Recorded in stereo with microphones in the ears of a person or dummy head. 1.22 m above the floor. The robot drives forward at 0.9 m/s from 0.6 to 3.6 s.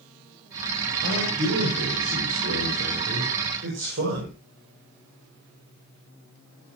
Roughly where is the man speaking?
Right.